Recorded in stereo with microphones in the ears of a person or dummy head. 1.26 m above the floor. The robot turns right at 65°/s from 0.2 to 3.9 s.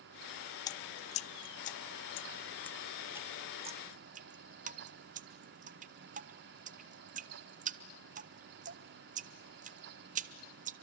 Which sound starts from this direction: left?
Dripping, at 0.7 s.